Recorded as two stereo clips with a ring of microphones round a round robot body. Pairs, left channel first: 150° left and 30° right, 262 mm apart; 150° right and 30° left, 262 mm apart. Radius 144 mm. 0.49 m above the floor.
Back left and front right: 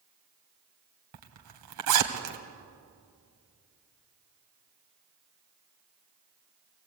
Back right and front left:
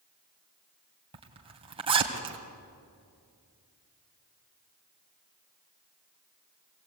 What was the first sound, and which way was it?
A zipper, 40° right.